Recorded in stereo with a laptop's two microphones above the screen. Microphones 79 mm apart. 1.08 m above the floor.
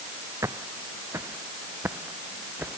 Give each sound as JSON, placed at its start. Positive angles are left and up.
{"t": 0.4, "sound": "footsteps", "side_deg": -40}